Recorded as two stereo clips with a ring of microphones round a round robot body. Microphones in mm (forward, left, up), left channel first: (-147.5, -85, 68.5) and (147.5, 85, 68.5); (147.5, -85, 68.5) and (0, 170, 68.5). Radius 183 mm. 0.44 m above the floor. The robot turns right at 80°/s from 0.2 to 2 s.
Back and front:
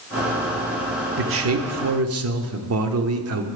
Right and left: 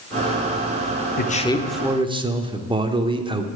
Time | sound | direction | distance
1.2 | a man speaking | 15° right | 1.0 m